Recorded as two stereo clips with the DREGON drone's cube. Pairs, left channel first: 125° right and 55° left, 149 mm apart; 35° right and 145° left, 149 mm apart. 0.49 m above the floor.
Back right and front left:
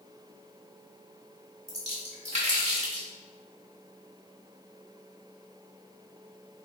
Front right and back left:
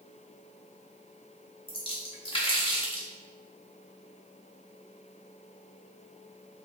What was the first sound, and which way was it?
A splash, 15° left.